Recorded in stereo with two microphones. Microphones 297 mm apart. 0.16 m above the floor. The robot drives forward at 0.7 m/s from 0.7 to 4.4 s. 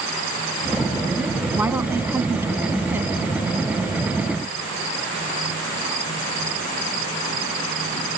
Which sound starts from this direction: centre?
A woman speaking, at 1.6 s.